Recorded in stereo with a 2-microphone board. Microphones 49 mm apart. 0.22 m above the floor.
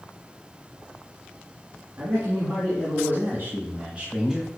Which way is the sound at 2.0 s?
60° right (ahead or behind).